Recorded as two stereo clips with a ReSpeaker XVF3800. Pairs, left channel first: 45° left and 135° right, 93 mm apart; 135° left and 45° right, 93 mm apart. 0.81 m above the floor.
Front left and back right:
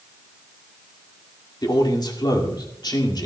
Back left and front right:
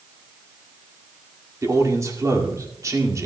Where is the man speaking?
5° left, 2 m.